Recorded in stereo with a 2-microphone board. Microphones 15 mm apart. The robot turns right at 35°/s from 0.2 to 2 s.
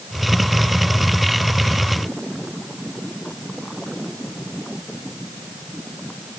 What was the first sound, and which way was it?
Only background noise.